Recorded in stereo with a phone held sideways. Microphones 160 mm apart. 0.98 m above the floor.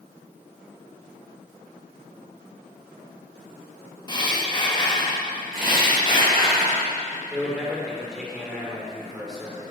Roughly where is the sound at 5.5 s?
Right.